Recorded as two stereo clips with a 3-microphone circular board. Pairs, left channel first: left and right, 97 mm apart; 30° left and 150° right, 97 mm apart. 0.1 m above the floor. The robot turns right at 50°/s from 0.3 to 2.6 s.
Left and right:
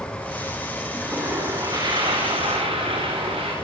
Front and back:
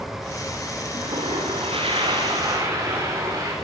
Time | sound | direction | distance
0.9 | a toilet flushing | 175° right | 10 m